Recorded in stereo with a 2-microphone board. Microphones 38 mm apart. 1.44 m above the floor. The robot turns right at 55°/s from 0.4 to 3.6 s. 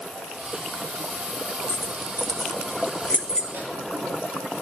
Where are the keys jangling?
55° left (ahead or behind), 0.8 m; by 3.4 s 20° left (ahead or behind), 0.8 m.